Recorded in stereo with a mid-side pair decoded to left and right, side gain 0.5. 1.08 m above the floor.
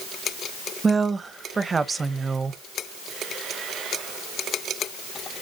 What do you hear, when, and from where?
0.8 s a woman speaking: 25° right, 0.7 m